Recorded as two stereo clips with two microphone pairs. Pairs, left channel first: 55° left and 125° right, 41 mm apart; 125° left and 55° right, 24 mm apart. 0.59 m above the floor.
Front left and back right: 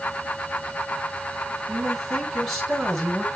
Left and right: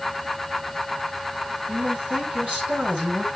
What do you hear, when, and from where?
1.7 s a man speaking: 30° right, 7 m